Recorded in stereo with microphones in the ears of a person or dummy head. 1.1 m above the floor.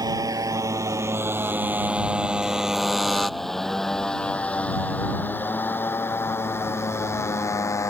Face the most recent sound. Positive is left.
turn(degrees=20)  # may be behind; listen again after turning